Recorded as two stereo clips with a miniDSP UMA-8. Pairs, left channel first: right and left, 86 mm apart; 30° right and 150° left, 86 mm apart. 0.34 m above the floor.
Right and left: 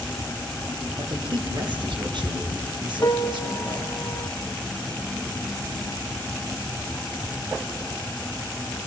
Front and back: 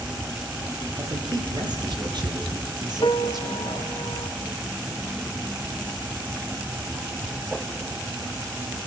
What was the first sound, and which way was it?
A man speaking, 115° left.